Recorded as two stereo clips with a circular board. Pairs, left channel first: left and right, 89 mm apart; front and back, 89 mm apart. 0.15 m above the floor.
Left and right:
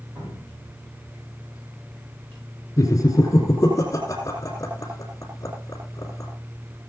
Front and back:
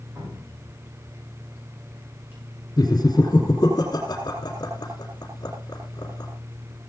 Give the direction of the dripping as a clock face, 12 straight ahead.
4 o'clock.